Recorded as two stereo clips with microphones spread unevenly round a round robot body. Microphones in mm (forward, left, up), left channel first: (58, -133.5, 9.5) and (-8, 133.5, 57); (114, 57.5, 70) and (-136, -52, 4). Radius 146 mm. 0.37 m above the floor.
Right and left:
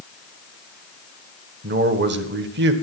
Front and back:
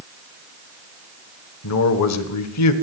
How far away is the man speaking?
About 1.7 m.